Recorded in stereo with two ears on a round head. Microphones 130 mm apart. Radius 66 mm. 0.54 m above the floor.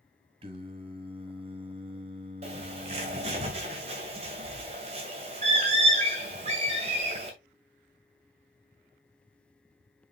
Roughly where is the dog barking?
I don't hear a dog barking.